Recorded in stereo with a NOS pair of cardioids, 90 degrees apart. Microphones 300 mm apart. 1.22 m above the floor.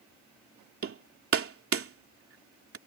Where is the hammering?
45° right.